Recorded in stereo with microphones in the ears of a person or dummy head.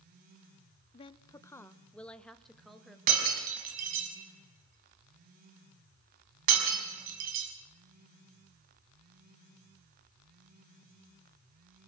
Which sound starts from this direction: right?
Breaking glass, at 3.1 s.